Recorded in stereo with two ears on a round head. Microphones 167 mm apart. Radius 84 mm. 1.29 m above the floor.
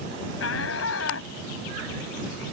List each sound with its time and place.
0.4 s a shout: 80° left